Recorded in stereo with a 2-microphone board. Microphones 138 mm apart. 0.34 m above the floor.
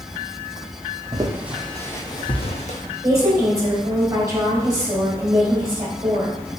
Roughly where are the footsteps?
Right.